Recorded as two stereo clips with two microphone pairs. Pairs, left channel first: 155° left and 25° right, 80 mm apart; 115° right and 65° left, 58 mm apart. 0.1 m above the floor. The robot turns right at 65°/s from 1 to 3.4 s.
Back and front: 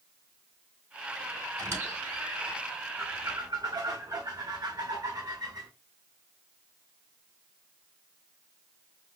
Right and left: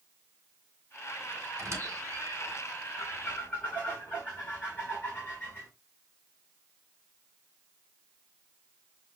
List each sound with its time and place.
1.6 s a squeak: 25° left, 2.5 m; by 2.6 s 90° left, 2.5 m
3.0 s a squeak: 80° right, 1.5 m; by 5.7 s 50° right, 1.5 m